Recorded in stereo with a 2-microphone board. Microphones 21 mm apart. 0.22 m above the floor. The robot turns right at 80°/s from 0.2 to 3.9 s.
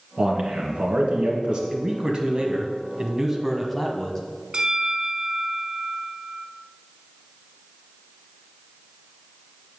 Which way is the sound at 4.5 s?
45° right (ahead or behind).